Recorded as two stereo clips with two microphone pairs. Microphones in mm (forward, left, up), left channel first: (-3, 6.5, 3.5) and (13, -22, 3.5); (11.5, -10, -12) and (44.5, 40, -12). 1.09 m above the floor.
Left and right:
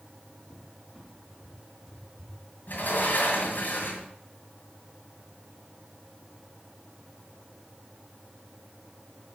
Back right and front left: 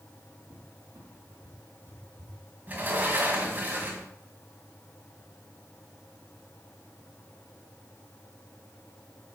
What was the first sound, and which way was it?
A cupboard door, 25° left.